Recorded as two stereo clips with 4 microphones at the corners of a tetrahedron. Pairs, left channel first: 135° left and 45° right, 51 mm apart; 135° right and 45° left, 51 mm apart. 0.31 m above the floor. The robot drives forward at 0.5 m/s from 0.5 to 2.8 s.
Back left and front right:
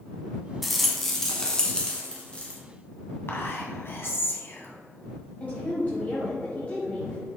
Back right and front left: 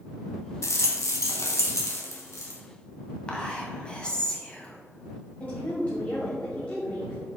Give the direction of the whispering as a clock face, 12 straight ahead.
7 o'clock.